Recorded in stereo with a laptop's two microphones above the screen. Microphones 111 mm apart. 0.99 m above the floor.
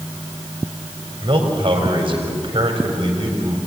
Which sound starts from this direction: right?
A man speaking, at 1.2 s.